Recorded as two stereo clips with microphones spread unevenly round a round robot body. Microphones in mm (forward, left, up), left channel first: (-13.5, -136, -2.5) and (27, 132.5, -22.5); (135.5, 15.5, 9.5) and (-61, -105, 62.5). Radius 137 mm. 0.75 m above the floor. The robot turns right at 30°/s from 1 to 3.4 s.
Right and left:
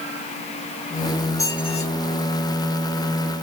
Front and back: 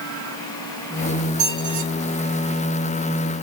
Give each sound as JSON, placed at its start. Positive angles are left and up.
{"t": 1.4, "sound": "a squeak", "azimuth_deg": 180, "distance_m": 1.3}